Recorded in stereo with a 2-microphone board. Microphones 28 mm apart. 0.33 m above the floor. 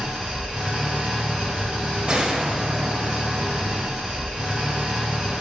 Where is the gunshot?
40° right (ahead or behind), 0.6 m.